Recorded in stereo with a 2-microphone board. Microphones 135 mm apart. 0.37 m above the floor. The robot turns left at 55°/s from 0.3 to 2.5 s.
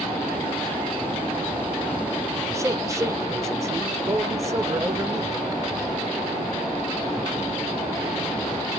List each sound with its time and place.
2.5 s a man speaking: 25° right (ahead or behind), 0.9 m